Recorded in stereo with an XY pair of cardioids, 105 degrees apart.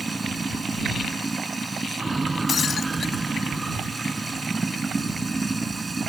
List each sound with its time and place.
0.0 s running water: 20° right
2.5 s breaking glass: 45° left